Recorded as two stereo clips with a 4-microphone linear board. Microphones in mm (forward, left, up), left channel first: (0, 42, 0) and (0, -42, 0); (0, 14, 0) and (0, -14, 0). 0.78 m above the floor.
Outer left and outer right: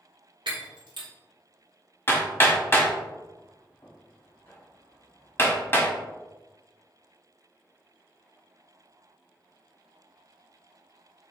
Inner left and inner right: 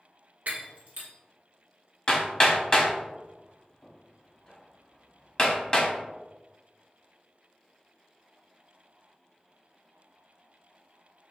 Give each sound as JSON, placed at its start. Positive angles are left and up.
{"t": 0.5, "sound": "breaking glass", "side_deg": -75, "distance_m": 1.4}
{"t": 2.1, "sound": "hammering", "side_deg": 30, "distance_m": 1.3}